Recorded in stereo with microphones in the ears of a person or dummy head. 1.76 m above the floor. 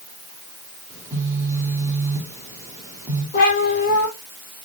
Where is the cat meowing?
45° left (ahead or behind), 4.5 m.